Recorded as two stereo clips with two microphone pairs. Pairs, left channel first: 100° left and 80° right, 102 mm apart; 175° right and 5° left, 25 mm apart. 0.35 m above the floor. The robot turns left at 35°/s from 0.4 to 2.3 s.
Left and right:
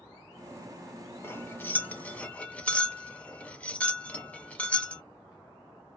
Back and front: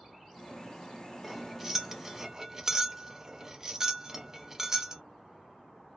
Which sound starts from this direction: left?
Cutlery clinking, at 1.2 s.